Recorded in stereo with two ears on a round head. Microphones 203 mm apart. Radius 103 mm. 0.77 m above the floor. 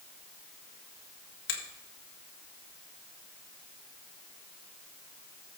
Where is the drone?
I don't hear a drone.